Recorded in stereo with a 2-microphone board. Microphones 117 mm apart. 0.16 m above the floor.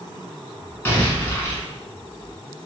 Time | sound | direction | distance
0.8 | an explosion | 20° left (ahead or behind) | 0.8 m